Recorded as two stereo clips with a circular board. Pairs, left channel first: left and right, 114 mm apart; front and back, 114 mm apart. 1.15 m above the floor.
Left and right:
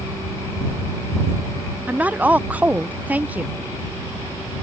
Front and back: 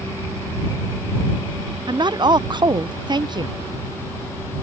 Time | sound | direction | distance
1.9 | a woman speaking | 160° right | ?